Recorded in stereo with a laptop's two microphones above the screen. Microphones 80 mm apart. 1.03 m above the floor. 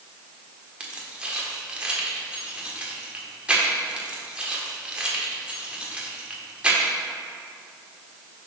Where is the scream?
I don't hear a scream.